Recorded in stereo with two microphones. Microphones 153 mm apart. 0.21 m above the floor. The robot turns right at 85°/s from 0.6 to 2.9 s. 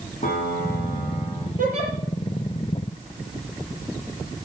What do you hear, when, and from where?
0.2 s a piano: 135° left, 5.5 m; by 1.5 s 150° right, 5.5 m
1.6 s a giggle: 65° right (ahead or behind), 5 m; by 1.9 s 40° right (ahead or behind), 5 m